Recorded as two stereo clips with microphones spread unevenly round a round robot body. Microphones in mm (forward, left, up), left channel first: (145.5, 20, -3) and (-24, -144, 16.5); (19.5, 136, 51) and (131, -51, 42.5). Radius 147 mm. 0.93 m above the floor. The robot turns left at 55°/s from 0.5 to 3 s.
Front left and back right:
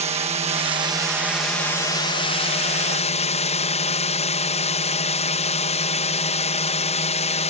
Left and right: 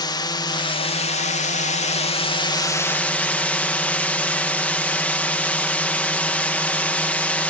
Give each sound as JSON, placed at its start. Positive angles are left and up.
{"t": 0.0, "sound": "a drone", "azimuth_deg": 180}